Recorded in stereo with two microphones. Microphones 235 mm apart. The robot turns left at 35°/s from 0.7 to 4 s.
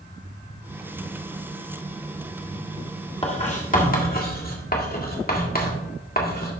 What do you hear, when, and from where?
3.2 s writing: 25° left (ahead or behind), 1.7 m; by 6.5 s 40° left (ahead or behind), 1.7 m